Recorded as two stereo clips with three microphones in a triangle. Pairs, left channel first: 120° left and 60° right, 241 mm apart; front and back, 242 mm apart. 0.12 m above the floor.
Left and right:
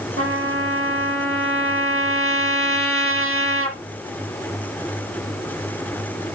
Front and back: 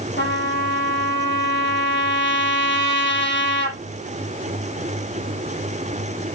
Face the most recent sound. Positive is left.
turn(degrees=-40)